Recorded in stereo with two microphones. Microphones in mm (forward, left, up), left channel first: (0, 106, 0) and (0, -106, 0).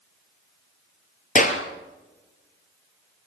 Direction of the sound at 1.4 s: 40° left (ahead or behind).